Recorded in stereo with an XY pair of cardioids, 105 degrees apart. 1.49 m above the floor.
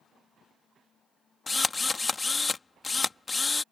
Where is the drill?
25° left.